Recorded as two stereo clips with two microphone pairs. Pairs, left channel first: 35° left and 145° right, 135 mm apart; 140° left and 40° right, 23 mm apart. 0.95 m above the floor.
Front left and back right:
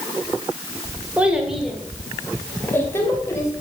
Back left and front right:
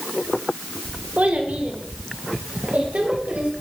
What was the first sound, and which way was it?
A child speaking, 65° right.